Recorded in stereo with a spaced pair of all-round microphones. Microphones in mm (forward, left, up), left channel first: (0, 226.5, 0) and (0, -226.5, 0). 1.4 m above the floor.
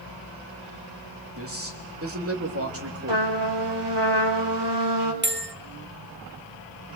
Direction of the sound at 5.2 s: 25° right (ahead or behind).